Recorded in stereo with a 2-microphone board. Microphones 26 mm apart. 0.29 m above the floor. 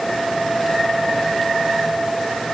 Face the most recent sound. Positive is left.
No sound to turn to.